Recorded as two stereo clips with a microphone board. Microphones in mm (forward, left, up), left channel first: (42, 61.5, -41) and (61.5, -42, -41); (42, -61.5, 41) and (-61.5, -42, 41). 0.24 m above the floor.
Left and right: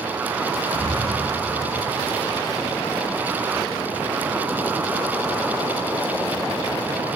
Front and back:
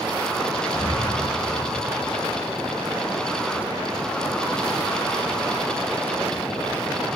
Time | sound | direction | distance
0.7 | breathing | 135° left | 0.7 m